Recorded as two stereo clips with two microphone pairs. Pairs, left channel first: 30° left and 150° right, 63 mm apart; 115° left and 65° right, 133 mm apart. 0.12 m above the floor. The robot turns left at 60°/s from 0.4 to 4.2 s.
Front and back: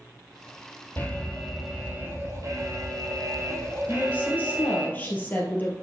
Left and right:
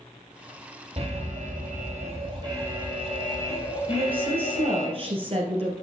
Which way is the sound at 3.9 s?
10° right.